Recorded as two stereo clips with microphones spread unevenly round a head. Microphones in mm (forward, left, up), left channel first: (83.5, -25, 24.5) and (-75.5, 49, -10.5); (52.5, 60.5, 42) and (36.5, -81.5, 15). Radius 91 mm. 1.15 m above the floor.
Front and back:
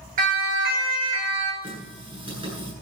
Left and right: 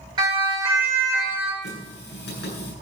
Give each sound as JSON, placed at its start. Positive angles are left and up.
{"t": 0.2, "sound": "a siren", "azimuth_deg": -160, "distance_m": 4.5}
{"t": 1.6, "sound": "a running tap", "azimuth_deg": 90, "distance_m": 9.0}